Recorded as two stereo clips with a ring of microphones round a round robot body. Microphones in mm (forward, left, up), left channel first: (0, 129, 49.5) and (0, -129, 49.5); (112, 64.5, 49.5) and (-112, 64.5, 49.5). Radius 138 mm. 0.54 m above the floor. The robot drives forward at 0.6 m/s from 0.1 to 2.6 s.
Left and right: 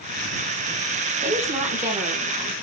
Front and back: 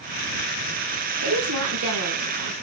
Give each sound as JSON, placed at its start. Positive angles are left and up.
{"t": 1.2, "sound": "a woman speaking", "azimuth_deg": -150, "distance_m": 5.0}